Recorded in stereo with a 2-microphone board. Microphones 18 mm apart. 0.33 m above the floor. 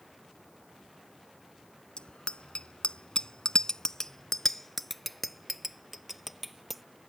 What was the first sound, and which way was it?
A bicycle bell, 70° left (ahead or behind).